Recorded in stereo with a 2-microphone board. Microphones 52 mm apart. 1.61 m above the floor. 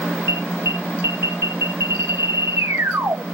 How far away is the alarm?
About 1.8 m.